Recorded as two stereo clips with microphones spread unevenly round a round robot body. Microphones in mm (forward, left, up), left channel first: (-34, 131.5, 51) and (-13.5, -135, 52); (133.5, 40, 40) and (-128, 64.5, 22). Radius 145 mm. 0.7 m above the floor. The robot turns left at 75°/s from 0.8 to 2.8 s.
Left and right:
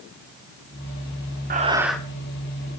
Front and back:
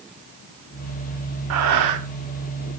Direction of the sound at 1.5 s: 145° right.